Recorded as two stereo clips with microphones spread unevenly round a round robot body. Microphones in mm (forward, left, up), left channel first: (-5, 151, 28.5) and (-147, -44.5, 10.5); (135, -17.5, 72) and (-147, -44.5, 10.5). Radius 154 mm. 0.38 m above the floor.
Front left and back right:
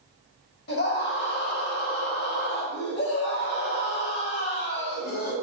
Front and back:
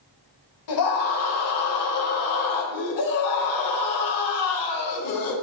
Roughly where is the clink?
I don't hear a clink.